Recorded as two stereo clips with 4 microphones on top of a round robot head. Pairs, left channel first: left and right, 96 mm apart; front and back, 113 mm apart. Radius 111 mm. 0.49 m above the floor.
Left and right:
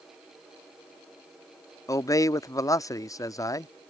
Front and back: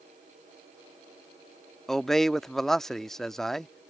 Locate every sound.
1.9 s a man speaking: 80° left